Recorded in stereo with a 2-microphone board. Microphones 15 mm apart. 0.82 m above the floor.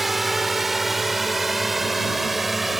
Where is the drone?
10° right (ahead or behind).